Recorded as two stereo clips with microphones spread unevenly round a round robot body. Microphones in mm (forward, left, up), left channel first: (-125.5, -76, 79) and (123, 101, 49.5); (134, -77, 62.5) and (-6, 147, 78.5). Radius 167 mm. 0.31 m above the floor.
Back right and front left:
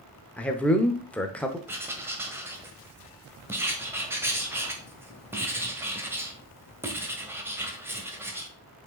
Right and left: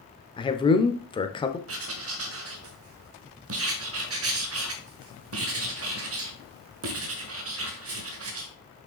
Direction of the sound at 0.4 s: 50° right.